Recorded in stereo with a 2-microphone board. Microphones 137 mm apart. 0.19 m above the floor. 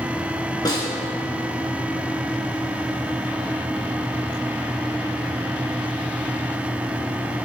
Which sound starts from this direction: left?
A snare drum, at 0.7 s.